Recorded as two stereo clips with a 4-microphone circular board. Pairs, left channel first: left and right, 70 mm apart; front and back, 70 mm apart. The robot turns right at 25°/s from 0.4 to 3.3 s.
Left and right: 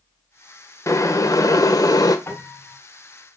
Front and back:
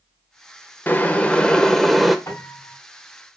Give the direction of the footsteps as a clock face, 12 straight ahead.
No footsteps in this recording.